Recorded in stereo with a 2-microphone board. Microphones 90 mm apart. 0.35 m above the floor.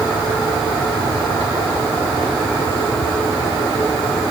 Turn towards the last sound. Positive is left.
No sound to turn to.